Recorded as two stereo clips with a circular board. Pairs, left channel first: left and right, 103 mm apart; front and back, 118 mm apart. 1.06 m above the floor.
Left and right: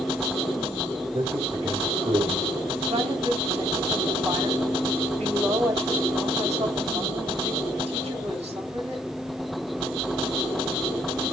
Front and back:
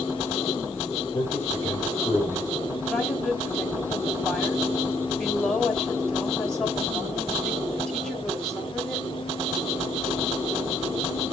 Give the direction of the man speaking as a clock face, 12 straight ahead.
2 o'clock.